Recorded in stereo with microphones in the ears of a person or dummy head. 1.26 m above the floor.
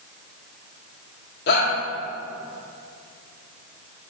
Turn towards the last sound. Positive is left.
turn(degrees=65)  # may be behind; listen again after turning